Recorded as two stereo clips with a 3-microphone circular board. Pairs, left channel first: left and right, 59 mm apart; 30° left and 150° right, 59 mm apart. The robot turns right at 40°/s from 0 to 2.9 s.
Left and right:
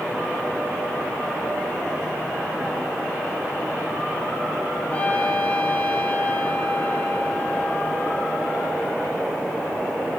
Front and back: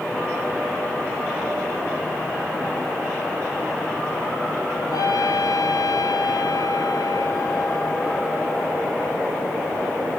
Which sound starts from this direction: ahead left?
A trumpet, at 4.9 s.